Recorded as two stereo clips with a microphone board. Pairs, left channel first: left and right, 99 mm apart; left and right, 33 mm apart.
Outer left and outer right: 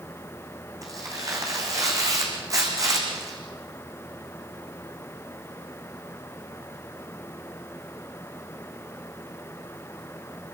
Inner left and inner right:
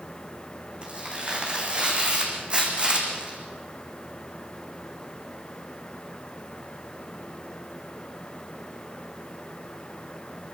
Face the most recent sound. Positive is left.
turn(degrees=-35)  # may be behind; listen again after turning